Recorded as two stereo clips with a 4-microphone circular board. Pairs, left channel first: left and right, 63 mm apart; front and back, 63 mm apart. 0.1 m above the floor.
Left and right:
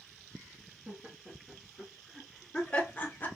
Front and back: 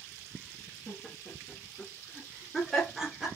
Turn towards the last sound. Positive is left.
turn(degrees=105)